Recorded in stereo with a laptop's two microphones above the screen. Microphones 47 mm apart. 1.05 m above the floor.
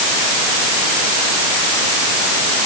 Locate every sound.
Only background noise.